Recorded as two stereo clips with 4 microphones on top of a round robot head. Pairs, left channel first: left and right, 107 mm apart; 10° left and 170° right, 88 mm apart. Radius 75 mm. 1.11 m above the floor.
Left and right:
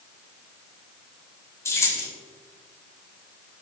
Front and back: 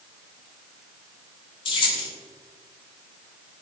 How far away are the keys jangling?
About 5 m.